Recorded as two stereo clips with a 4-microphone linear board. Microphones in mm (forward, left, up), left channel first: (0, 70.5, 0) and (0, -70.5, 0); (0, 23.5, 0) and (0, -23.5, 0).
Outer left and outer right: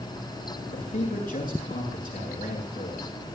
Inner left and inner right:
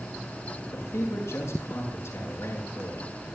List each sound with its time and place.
0.7 s a man speaking: 75° left (ahead or behind), 8 m